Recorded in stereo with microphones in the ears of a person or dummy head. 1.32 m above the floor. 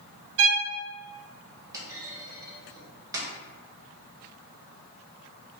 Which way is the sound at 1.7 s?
15° right (ahead or behind).